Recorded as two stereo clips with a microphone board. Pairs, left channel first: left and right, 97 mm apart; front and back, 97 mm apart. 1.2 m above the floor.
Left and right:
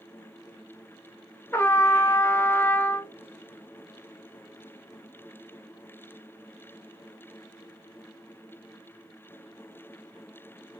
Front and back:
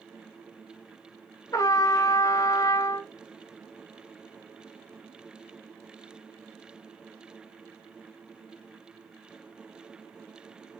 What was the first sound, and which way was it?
A trumpet, 35° left.